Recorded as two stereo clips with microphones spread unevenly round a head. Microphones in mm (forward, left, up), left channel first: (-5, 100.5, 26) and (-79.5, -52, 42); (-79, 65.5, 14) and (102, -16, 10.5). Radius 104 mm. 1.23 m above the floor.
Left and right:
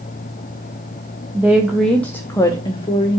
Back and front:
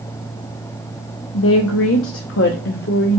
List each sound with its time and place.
1.3 s a woman speaking: 165° left, 1.0 m; by 3.2 s 115° left, 1.3 m